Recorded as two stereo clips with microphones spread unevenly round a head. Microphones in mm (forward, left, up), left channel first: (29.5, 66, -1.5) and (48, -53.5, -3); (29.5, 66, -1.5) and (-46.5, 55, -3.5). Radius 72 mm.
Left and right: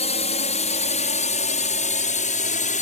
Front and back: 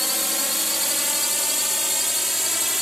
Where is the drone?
100° left.